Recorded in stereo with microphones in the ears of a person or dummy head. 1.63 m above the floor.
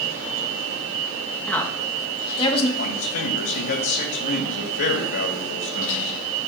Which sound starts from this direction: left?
A man speaking, at 2.8 s.